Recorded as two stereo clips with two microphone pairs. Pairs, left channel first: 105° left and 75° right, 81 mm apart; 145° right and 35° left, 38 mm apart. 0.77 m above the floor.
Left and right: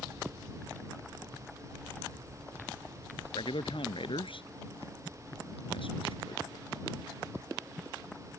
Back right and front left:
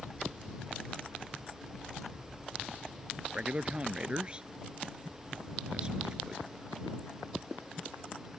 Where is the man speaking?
95° left; by 6.7 s 110° left.